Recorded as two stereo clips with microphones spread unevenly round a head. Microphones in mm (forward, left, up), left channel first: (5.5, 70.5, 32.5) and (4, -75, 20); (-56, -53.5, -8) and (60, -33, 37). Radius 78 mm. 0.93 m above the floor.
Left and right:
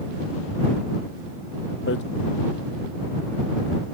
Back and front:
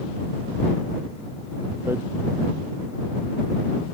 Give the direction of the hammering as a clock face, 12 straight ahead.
9 o'clock.